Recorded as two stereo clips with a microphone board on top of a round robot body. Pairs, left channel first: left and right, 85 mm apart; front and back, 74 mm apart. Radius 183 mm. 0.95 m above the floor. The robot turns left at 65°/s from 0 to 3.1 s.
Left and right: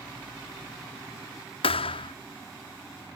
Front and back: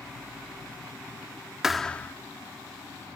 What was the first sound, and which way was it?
A thud, 95° left.